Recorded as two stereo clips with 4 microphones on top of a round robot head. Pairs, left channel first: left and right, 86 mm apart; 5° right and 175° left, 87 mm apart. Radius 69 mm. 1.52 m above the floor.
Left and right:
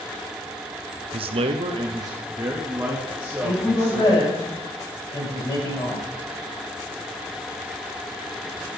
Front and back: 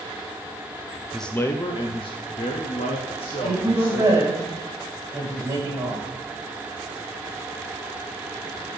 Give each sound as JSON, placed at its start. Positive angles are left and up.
{"t": 1.1, "sound": "a man speaking", "azimuth_deg": -95, "distance_m": 0.6}
{"t": 3.4, "sound": "a woman speaking", "azimuth_deg": 120, "distance_m": 4.0}